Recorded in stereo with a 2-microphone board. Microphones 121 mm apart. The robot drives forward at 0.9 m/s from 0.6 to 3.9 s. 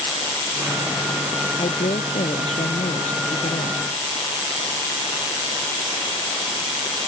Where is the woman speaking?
65° left (ahead or behind); by 3.8 s 75° left (ahead or behind).